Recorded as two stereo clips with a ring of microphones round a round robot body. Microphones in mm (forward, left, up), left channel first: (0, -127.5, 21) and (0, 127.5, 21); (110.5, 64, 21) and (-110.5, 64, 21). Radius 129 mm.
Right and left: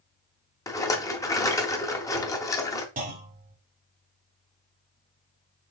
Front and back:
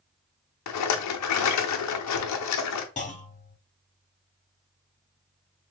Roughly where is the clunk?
Ahead left.